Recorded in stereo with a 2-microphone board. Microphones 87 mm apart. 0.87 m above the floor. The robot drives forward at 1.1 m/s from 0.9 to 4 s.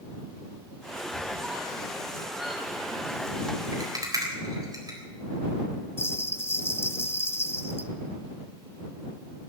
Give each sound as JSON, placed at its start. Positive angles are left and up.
{"t": 1.1, "sound": "a squeak", "side_deg": -10, "distance_m": 4.0}
{"t": 3.7, "sound": "a rattle", "side_deg": -50, "distance_m": 3.5}
{"t": 6.0, "sound": "a bell", "side_deg": 25, "distance_m": 0.5}